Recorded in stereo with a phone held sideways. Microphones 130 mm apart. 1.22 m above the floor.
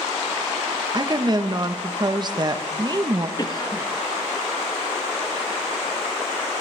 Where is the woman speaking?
35° right (ahead or behind), 0.9 m.